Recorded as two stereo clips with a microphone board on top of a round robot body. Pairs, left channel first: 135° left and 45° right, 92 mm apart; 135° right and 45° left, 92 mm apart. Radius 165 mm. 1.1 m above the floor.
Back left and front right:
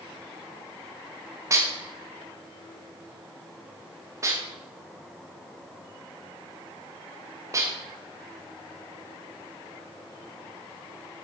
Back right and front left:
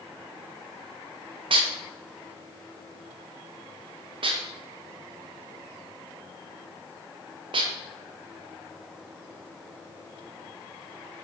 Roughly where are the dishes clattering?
Ahead.